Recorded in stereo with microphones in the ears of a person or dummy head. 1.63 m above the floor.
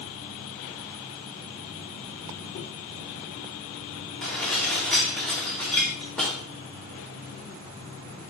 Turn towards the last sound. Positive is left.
turn(degrees=5)  # may be behind; listen again after turning